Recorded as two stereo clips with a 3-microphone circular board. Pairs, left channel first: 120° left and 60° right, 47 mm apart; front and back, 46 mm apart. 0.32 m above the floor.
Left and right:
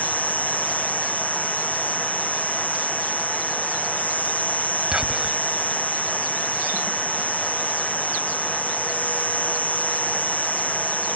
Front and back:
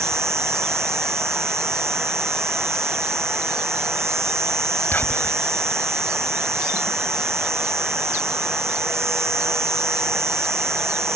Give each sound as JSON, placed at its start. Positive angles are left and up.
{"t": 0.0, "sound": "an insect", "azimuth_deg": 180}
{"t": 4.9, "sound": "whispering", "azimuth_deg": 10}